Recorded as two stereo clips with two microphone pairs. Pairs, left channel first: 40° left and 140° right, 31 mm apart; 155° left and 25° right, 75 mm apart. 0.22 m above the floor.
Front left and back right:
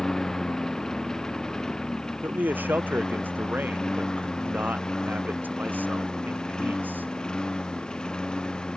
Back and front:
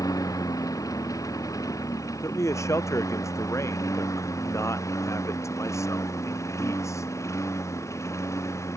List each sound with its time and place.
0.0 s a lawn mower: 115° left; by 8.8 s 105° left
2.2 s a man speaking: 155° right